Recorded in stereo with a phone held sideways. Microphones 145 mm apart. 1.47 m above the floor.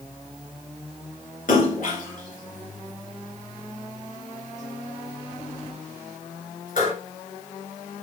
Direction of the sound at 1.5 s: 65° left (ahead or behind).